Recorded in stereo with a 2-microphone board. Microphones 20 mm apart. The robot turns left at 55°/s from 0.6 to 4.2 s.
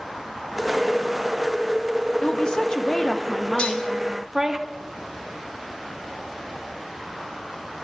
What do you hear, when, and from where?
2.2 s a woman speaking: 85° left, 0.9 m; by 4.6 s 25° right, 0.9 m
3.6 s dishes clattering: 85° left, 1.4 m; by 3.9 s 70° left (ahead or behind), 1.4 m